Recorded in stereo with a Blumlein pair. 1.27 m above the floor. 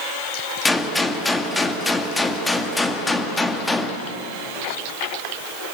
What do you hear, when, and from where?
0.7 s a gunshot: 5° left, 2.0 m